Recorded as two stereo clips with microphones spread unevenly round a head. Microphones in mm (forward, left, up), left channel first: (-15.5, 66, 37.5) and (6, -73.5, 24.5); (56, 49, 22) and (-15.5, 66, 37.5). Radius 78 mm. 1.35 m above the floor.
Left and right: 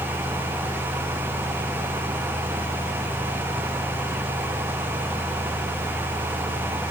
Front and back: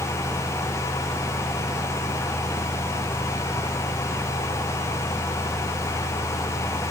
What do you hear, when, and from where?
Only background noise.